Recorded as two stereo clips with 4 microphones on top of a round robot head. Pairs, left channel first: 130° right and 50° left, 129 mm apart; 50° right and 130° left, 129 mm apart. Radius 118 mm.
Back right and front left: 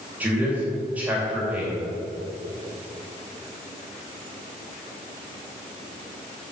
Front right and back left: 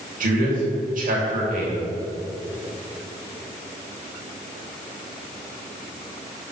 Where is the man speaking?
125° left, 3 m.